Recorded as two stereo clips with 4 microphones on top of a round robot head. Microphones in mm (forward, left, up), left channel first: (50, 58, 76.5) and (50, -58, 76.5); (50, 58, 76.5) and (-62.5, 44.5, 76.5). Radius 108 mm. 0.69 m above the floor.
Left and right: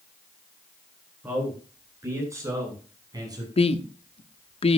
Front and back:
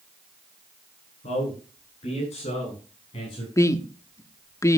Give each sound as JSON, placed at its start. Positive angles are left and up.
{"t": 1.2, "sound": "a man speaking", "azimuth_deg": -20, "distance_m": 9.5}
{"t": 3.6, "sound": "a woman speaking", "azimuth_deg": 65, "distance_m": 1.2}